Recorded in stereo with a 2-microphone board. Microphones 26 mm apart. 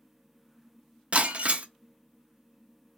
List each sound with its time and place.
1.1 s breaking glass: 50° right (ahead or behind), 0.5 m